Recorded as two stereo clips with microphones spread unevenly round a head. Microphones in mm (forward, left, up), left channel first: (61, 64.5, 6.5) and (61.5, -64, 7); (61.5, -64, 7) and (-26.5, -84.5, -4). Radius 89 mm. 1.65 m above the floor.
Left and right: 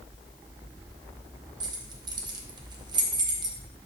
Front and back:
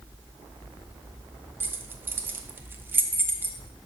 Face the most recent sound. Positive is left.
turn(degrees=-105)